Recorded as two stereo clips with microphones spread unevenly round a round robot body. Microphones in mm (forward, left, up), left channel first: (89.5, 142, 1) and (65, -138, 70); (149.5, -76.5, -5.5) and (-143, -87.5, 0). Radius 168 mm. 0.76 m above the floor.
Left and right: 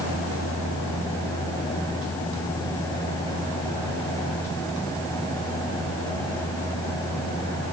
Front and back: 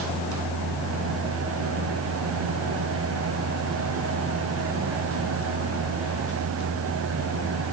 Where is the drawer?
I don't hear a drawer.